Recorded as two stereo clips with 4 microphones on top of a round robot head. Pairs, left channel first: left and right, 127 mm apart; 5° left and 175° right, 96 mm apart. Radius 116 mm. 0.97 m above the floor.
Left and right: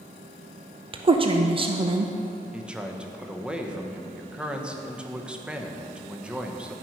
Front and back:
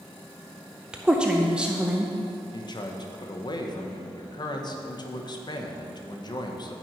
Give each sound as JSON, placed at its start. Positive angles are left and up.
{"t": 0.9, "sound": "a woman speaking", "azimuth_deg": -100, "distance_m": 0.7}
{"t": 2.5, "sound": "a man speaking", "azimuth_deg": -10, "distance_m": 1.1}